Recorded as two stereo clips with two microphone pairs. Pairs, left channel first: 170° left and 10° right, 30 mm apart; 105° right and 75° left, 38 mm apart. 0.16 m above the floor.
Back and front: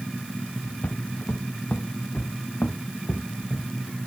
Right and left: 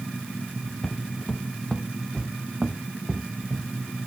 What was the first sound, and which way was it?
Footsteps, straight behind.